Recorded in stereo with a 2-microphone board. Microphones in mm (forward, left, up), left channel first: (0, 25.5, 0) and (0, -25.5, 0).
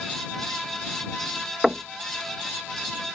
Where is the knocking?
5° right (ahead or behind).